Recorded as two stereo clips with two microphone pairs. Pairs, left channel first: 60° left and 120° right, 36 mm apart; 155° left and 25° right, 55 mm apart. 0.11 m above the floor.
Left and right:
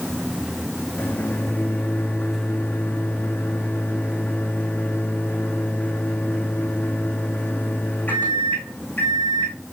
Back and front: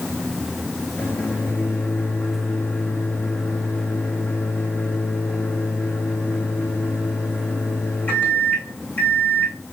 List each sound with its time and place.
1.0 s a microwave: 100° left, 4.5 m